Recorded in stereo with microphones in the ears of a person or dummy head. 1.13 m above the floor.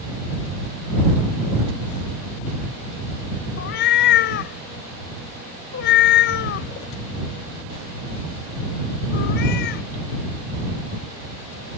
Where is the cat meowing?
60° left (ahead or behind).